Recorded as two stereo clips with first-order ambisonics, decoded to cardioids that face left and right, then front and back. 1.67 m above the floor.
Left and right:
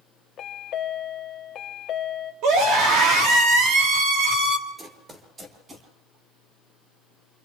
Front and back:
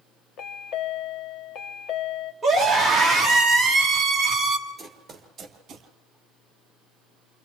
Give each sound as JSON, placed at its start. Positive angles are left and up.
{"t": 0.4, "sound": "a chime", "azimuth_deg": 35, "distance_m": 1.0}
{"t": 2.4, "sound": "a scream", "azimuth_deg": -90, "distance_m": 3.5}
{"t": 4.8, "sound": "running footsteps", "azimuth_deg": -85, "distance_m": 1.7}